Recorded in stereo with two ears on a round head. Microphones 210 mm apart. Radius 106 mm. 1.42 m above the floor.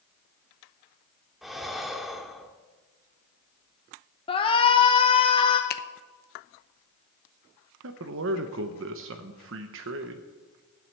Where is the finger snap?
40° left (ahead or behind), 0.7 m.